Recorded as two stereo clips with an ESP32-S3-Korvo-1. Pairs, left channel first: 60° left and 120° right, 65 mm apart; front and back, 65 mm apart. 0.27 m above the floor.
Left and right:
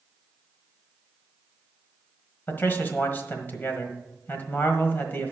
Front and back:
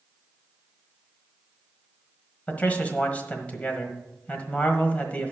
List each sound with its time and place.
2.5 s a man speaking: 45° left, 1.4 m